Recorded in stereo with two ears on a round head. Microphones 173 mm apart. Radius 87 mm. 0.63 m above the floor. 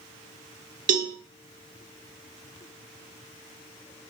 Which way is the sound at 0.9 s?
40° right (ahead or behind).